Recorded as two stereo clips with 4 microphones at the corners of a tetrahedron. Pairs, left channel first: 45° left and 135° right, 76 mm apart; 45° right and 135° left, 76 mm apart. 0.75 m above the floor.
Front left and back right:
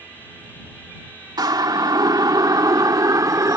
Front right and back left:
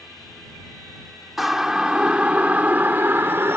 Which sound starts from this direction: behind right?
A siren, at 1.4 s.